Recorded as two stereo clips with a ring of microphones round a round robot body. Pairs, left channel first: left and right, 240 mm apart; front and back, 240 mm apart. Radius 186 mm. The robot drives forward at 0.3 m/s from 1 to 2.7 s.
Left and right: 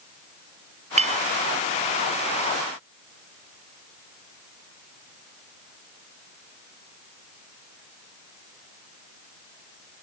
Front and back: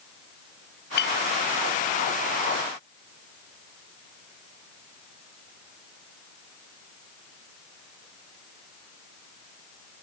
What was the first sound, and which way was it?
A clink, 30° right.